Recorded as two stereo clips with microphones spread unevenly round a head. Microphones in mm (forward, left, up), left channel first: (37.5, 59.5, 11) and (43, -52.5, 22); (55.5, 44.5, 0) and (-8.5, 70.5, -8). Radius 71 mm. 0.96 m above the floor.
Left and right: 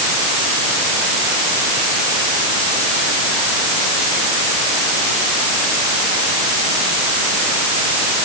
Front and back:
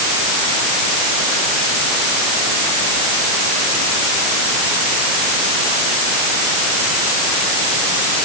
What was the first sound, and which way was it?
Only background noise.